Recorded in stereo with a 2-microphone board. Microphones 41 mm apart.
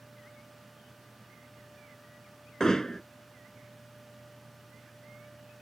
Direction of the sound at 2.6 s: 15° left (ahead or behind).